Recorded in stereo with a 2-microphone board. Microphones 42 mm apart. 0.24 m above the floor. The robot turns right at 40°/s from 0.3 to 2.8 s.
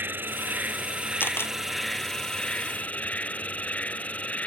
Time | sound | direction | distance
0.0 | an insect | 60° right | ?
1.2 | a camera shutter | 65° left (ahead or behind) | ?